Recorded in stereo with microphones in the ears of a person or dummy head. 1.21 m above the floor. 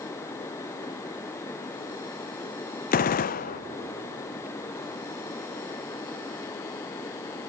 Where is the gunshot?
40° left (ahead or behind), 0.6 m.